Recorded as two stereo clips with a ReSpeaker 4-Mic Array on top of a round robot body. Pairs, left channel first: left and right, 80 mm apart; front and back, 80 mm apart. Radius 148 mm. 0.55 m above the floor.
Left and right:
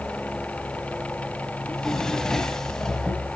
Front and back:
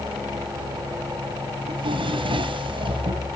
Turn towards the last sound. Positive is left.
turn(degrees=175)